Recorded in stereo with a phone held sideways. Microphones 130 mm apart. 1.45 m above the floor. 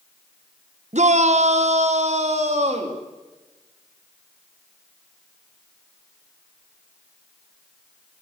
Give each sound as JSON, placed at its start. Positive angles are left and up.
{"t": 0.9, "sound": "a shout", "side_deg": -60, "distance_m": 1.1}